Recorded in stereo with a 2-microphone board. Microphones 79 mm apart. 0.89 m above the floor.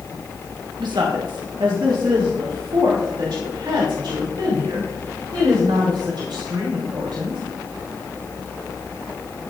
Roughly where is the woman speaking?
Right.